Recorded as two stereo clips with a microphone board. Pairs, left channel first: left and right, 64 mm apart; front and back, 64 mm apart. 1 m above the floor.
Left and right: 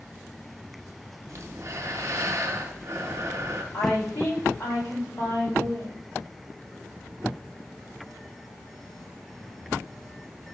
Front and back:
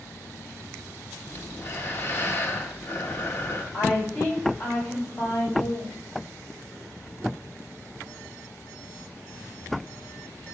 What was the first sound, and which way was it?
Breathing, 50° right.